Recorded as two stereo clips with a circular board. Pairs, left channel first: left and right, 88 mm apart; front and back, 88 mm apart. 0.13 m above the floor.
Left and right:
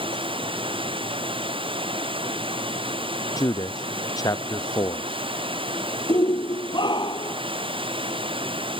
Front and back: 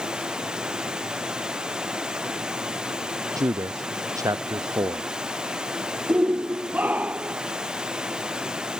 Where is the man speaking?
135° left.